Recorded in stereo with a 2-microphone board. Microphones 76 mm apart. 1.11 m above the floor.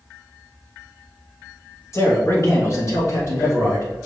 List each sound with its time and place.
1.9 s a man speaking: 40° left (ahead or behind), 1.2 m